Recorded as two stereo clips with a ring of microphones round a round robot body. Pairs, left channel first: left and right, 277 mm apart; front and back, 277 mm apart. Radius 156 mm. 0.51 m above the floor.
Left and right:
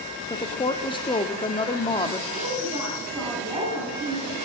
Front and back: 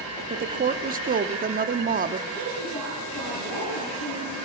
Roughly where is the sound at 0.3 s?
Behind left.